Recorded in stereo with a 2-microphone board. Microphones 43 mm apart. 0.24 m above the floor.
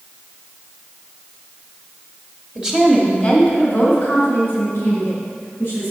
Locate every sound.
2.5 s a woman speaking: 20° right (ahead or behind), 1.0 m; by 5.9 s 65° left (ahead or behind), 3.5 m